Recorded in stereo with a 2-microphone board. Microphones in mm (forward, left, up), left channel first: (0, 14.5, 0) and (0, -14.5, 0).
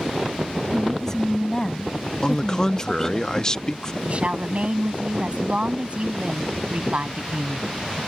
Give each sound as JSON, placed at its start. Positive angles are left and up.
{"t": 0.7, "sound": "a woman speaking", "side_deg": 20}
{"t": 2.2, "sound": "a man speaking", "side_deg": 25}
{"t": 4.0, "sound": "a woman speaking", "side_deg": -40}